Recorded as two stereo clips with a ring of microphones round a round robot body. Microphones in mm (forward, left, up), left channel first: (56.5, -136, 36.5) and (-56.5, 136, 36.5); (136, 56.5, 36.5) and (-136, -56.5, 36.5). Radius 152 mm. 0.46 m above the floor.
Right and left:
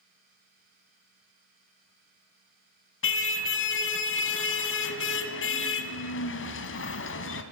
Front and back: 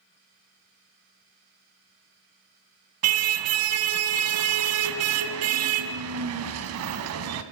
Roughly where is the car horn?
Behind right.